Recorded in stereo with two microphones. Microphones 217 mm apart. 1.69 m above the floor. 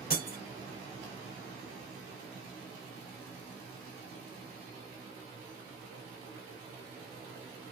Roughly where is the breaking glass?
Left.